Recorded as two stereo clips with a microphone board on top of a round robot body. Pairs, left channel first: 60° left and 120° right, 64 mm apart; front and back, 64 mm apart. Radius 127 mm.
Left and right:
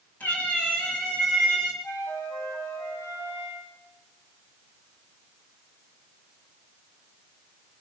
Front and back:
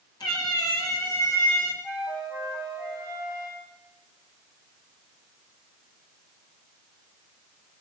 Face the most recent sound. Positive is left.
turn(degrees=15)